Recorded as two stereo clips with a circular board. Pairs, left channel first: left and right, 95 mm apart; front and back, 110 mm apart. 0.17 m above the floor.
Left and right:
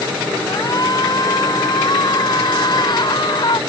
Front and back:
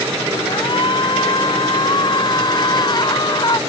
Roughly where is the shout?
Ahead left.